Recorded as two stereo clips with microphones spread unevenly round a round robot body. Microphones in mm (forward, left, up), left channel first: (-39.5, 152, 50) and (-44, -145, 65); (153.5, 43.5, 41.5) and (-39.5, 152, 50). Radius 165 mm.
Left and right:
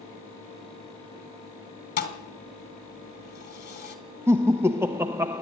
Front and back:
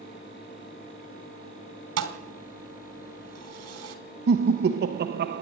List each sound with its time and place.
2.0 s a thud: 145° left, 3 m
4.3 s laughter: 175° right, 0.9 m